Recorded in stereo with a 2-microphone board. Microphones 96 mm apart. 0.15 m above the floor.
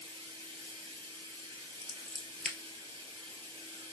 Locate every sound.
0.0 s running water: 65° right (ahead or behind), 2.5 m
1.8 s scissors: centre (ahead or behind), 1.1 m